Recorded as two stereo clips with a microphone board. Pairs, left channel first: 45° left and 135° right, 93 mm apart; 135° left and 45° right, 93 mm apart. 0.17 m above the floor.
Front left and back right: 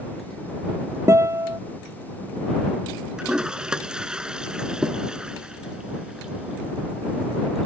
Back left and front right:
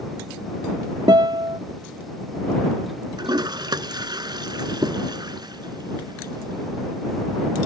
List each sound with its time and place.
1.1 s a guitar: 80° right
3.2 s a toilet flushing: 55° right